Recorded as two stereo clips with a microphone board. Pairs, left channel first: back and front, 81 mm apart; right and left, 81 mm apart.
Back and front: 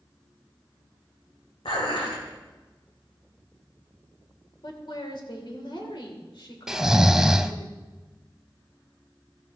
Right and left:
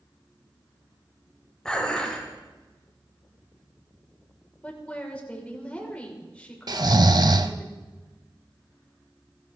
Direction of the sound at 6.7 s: 80° left.